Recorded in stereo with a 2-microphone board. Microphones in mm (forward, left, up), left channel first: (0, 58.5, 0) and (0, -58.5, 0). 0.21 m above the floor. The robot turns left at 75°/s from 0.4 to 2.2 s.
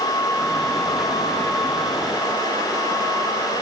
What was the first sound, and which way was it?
Only background noise.